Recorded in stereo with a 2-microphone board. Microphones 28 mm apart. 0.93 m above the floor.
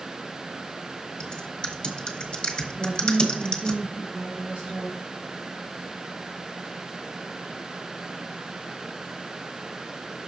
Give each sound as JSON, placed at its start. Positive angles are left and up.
{"t": 1.2, "sound": "typing on a keyboard", "side_deg": 35, "distance_m": 1.3}
{"t": 2.8, "sound": "a woman speaking", "side_deg": -60, "distance_m": 1.7}